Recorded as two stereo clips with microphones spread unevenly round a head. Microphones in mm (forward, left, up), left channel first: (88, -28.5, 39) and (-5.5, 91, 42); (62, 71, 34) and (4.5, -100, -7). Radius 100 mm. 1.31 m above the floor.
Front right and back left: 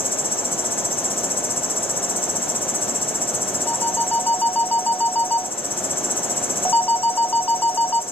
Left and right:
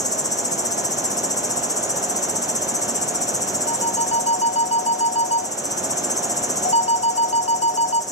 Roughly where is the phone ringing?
Ahead left.